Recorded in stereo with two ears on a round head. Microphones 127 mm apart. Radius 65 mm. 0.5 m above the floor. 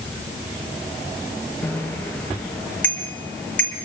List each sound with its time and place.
1.6 s a bicycle bell: 10° left (ahead or behind), 6 m